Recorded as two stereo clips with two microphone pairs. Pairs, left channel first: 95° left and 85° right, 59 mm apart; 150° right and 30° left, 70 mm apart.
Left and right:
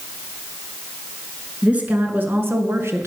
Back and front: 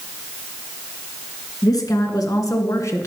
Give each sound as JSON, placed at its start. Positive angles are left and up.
{"t": 1.6, "sound": "a woman speaking", "azimuth_deg": -150, "distance_m": 2.0}